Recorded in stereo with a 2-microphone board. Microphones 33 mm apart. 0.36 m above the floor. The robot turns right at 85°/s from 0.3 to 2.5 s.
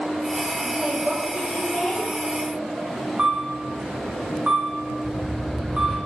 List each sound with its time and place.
0.6 s a woman speaking: 45° right, 1.8 m; by 2.1 s 80° left, 1.8 m
3.2 s a camera shutter: 30° right (ahead or behind), 3 m
5.0 s a whoosh: 5° left (ahead or behind), 2.5 m